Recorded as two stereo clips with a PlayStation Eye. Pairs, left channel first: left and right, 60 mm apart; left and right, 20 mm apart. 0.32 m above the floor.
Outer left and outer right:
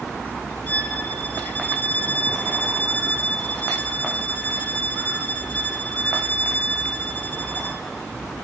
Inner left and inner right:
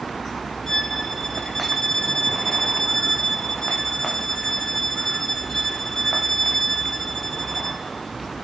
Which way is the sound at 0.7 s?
30° left (ahead or behind).